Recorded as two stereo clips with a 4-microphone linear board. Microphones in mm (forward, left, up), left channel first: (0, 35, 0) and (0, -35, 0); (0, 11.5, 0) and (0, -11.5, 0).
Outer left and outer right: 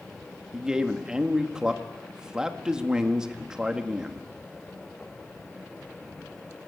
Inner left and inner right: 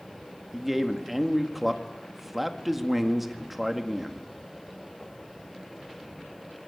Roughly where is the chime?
No chime in this recording.